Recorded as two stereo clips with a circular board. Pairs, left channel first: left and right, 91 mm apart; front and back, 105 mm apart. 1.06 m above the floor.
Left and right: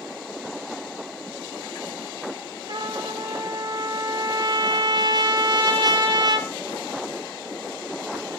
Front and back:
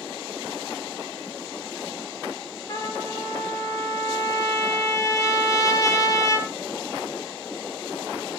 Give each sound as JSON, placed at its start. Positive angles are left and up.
{"t": 2.7, "sound": "a trumpet", "azimuth_deg": -55, "distance_m": 2.5}